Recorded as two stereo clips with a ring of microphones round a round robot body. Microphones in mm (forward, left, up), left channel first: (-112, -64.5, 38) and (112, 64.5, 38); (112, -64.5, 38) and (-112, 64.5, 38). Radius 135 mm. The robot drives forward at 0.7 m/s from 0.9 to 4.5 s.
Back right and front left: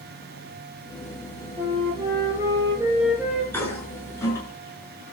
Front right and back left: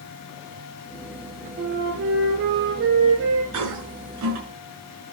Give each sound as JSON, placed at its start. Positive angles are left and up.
{"t": 1.6, "sound": "a flute", "azimuth_deg": 100, "distance_m": 4.0}
{"t": 3.5, "sound": "a toilet flushing", "azimuth_deg": 125, "distance_m": 6.0}